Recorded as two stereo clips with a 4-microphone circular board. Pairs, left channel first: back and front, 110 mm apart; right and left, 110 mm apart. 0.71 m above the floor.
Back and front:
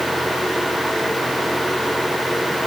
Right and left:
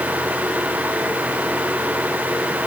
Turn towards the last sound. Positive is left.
No sound to turn to.